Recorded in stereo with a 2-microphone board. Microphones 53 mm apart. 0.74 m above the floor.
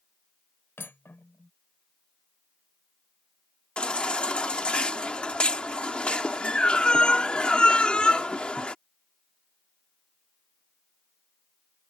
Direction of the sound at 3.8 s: 20° left (ahead or behind).